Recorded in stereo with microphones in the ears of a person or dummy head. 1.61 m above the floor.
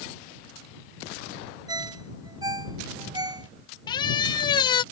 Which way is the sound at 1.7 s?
25° right (ahead or behind).